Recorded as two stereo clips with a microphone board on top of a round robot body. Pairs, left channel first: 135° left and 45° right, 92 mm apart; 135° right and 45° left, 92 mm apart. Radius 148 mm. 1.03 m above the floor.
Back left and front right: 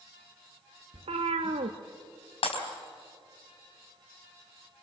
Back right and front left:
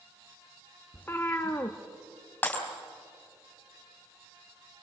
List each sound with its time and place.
0.9 s a cat meowing: 65° right, 0.7 m
2.4 s breaking glass: 150° left, 4 m